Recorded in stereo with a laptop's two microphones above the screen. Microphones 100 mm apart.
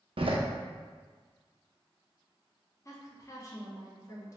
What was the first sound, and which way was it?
A door slam, 65° right (ahead or behind).